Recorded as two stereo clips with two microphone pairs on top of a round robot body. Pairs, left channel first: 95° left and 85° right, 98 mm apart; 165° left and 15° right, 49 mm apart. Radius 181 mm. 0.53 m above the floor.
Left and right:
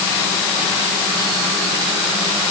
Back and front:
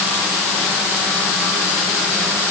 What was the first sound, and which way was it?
Only background noise.